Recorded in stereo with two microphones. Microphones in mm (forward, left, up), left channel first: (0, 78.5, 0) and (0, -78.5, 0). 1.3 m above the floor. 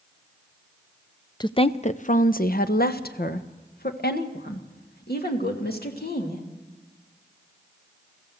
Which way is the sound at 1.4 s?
25° left (ahead or behind).